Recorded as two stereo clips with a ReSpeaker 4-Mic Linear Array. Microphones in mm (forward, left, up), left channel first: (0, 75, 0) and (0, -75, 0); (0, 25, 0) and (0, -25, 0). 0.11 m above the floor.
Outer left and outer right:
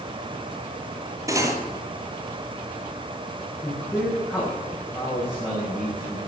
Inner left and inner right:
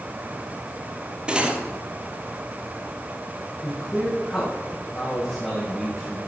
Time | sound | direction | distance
1.3 | cutlery clinking | 20° right (ahead or behind) | 1.6 m
3.6 | a man speaking | 15° left (ahead or behind) | 7 m